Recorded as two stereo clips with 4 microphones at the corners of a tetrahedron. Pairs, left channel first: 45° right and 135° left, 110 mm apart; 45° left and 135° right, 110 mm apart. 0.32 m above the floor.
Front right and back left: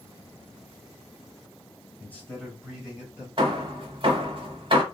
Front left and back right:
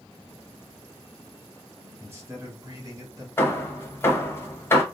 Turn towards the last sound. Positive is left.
turn(degrees=110)